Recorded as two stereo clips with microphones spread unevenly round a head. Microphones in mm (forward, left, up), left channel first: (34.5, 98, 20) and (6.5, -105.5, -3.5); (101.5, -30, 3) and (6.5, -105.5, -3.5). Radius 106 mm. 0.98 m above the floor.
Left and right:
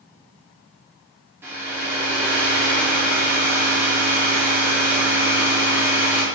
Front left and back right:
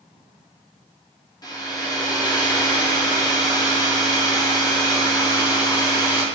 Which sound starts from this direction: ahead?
A hair dryer, at 1.4 s.